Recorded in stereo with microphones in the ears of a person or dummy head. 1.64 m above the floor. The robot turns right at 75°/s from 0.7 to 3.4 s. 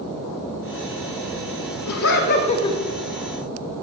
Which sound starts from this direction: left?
Laughter, at 1.9 s.